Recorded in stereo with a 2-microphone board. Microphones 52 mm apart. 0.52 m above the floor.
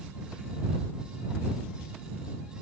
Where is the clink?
I don't hear a clink.